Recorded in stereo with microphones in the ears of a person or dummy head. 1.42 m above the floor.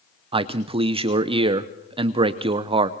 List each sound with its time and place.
0.3 s a man speaking: 30° right (ahead or behind), 0.7 m